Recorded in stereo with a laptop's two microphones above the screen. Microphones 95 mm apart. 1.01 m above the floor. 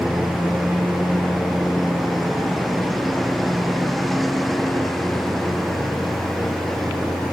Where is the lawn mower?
Centre (ahead or behind); by 7.3 s 5° left (ahead or behind).